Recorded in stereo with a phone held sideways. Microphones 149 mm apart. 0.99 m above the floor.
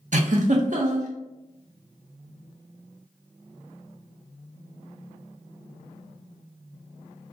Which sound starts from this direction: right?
A giggle, at 0.1 s.